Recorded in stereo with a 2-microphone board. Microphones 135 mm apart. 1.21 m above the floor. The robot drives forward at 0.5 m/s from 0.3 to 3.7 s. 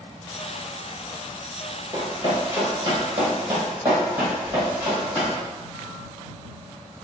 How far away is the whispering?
About 1.1 m.